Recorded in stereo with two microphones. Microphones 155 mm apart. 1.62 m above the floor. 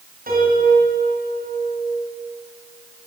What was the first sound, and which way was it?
A piano, 70° right (ahead or behind).